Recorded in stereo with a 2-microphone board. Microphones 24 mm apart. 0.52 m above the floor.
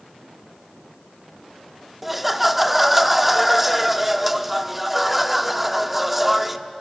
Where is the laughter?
10° right (ahead or behind), 0.8 m.